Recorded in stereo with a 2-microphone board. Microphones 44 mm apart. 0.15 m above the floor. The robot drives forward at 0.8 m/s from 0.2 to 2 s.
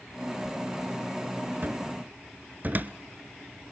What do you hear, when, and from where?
1.6 s a cupboard door: 50° right (ahead or behind), 0.7 m; by 2.9 s 45° right (ahead or behind), 0.8 m